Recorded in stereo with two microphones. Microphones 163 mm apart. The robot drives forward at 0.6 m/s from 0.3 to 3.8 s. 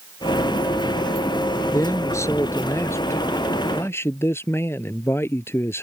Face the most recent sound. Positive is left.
turn(degrees=15)  # may be behind; listen again after turning